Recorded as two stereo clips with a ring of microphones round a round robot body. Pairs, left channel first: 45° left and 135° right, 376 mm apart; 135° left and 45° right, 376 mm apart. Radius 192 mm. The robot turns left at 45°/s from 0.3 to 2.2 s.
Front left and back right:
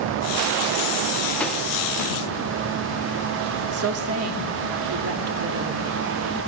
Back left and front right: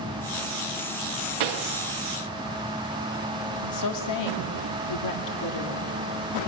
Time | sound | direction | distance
1.4 | a pop | 40° right | 0.8 m
3.6 | a woman speaking | 175° left | 1.9 m